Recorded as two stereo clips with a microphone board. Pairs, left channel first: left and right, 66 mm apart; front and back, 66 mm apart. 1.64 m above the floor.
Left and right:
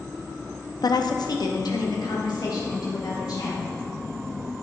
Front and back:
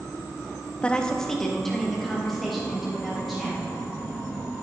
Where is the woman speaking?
75° left, 0.7 m; by 3.8 s 90° left, 4.5 m.